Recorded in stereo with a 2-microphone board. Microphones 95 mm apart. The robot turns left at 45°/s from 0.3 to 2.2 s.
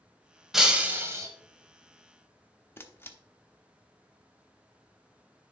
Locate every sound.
0.5 s breaking glass: 5° right, 1.3 m; by 1.3 s 40° right, 1.3 m
2.8 s a camera shutter: 25° left (ahead or behind), 0.8 m